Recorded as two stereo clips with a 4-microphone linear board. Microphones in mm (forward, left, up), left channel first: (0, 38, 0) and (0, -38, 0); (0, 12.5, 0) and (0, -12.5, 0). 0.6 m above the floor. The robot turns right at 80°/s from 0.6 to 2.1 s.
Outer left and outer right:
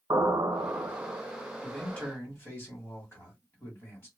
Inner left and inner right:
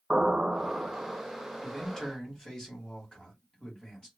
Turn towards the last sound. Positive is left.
turn(degrees=40)